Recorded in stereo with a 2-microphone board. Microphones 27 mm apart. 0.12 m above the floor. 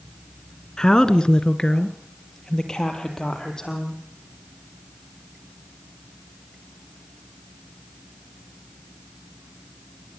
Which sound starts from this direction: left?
A woman speaking, at 0.8 s.